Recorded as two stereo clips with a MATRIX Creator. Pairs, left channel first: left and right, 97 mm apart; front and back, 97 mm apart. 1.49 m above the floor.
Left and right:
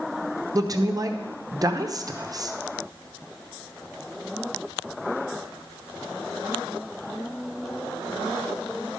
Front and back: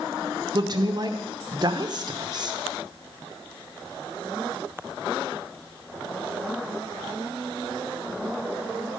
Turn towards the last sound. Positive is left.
turn(degrees=-140)